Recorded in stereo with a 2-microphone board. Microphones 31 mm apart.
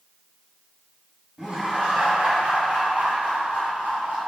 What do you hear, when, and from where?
1.4 s laughter: 20° right (ahead or behind), 1.1 m; by 4.2 s 55° right (ahead or behind), 2 m